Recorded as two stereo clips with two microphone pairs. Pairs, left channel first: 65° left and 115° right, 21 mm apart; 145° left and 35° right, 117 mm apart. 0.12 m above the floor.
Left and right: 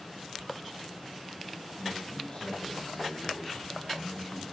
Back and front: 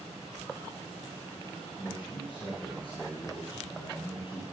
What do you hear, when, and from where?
1.8 s a man speaking: 105° left, 4 m